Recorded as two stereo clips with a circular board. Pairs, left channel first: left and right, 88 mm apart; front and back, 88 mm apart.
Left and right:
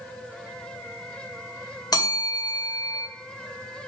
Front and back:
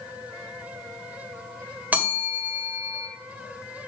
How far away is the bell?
About 2 m.